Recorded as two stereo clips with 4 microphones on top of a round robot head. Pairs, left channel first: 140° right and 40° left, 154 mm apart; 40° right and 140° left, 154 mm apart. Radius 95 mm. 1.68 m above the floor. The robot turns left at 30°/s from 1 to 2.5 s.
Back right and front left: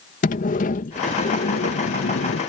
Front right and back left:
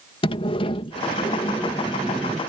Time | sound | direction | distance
0.2 | a sliding door | 100° right | ?